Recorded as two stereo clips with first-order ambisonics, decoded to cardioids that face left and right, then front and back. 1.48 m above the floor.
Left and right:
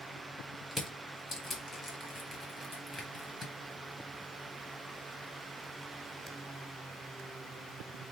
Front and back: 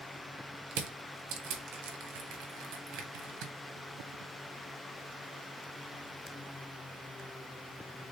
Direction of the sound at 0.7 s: 170° left.